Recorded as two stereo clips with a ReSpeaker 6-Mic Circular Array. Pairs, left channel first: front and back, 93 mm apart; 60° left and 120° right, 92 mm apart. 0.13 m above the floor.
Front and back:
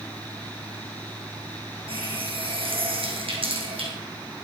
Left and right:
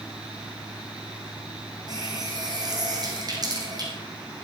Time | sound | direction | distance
1.9 | a running tap | 165° right | 4 m